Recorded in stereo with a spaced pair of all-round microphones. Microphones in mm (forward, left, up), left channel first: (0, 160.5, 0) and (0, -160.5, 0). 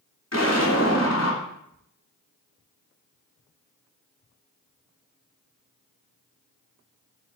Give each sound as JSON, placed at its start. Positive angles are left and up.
{"t": 0.3, "sound": "an explosion", "side_deg": 50, "distance_m": 3.5}